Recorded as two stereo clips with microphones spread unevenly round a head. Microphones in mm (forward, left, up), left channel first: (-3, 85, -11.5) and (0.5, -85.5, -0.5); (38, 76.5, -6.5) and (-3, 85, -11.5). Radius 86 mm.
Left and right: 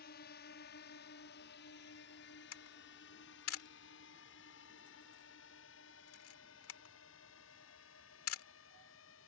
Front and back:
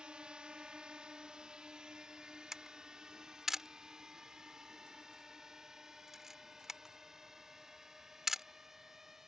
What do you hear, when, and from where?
0.0 s a drone: 105° left; by 9.3 s 90° left
2.5 s a camera shutter: 85° left